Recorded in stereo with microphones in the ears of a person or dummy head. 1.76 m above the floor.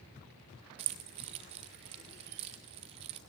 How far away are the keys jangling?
About 0.6 m.